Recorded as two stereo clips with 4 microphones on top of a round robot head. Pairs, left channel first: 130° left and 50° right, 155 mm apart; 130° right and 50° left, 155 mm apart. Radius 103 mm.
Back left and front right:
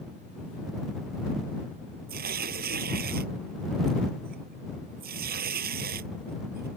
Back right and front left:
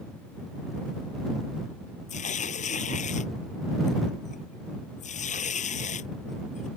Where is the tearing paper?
80° right.